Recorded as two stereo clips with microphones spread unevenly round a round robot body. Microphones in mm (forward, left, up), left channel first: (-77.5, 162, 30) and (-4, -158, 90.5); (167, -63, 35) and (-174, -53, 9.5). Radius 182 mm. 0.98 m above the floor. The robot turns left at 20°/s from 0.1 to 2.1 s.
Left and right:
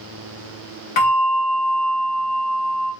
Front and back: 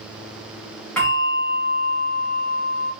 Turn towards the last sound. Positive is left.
turn(degrees=60)